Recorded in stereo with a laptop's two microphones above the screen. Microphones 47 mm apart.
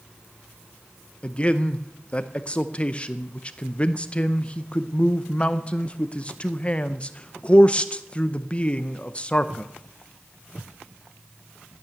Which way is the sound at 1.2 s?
25° left (ahead or behind).